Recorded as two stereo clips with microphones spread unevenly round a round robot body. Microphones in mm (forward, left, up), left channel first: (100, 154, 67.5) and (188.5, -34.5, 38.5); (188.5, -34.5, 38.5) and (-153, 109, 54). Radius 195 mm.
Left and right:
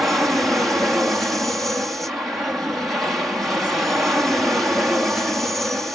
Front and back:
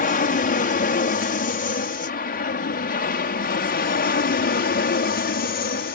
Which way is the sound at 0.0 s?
10° left.